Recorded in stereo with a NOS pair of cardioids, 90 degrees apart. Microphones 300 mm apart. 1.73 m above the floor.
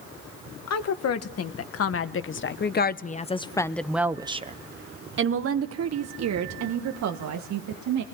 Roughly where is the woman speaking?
Ahead left.